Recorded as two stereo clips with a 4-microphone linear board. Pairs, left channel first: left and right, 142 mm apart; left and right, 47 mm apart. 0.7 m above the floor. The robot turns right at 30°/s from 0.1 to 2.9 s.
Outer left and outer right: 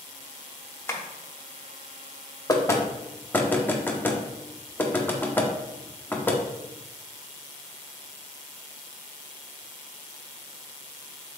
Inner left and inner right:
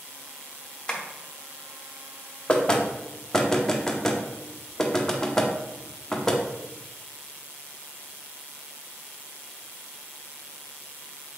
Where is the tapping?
15° left (ahead or behind), 0.7 m; by 1.0 s 20° left (ahead or behind), 0.7 m.